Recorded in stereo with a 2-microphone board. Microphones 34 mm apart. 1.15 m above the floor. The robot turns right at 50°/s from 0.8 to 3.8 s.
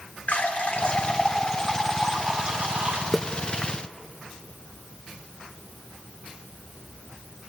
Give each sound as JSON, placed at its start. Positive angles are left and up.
{"t": 0.3, "sound": "a running tap", "azimuth_deg": 135, "distance_m": 2.5}
{"t": 3.1, "sound": "a splash", "side_deg": 5, "distance_m": 0.7}